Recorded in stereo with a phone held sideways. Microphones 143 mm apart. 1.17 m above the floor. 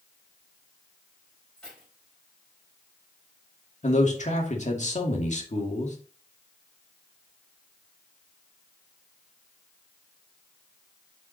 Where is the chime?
I don't hear a chime.